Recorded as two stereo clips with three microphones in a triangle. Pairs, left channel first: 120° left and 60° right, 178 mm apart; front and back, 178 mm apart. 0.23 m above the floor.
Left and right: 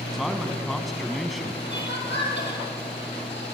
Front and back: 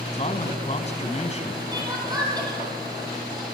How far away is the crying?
About 4.5 m.